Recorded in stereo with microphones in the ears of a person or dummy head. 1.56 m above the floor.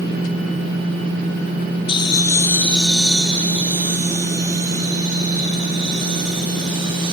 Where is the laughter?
30° left (ahead or behind), 1.0 m; by 7.1 s 35° right (ahead or behind), 3.5 m.